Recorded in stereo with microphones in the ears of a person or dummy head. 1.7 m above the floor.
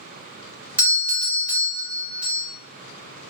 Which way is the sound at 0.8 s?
10° right (ahead or behind).